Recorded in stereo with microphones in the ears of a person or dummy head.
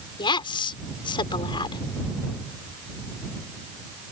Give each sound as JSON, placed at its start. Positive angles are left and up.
{"t": 0.2, "sound": "a woman speaking", "side_deg": 30}